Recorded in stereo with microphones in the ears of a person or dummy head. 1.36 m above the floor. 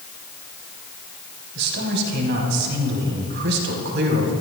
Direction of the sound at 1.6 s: 65° right (ahead or behind).